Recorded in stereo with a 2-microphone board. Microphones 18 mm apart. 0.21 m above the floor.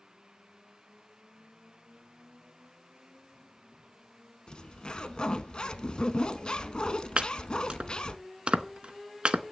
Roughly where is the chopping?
Right.